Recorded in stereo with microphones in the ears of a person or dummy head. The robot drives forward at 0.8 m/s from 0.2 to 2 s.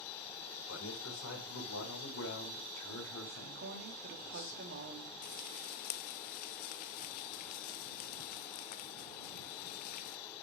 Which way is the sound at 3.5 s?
55° right (ahead or behind).